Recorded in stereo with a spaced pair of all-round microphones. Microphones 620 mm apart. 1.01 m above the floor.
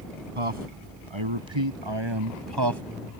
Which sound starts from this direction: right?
A man speaking, at 0.3 s.